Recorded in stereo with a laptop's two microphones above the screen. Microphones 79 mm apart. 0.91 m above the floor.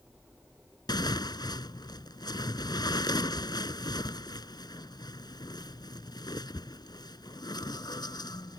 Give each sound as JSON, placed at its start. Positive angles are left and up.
{"t": 0.9, "sound": "tearing paper", "side_deg": 65}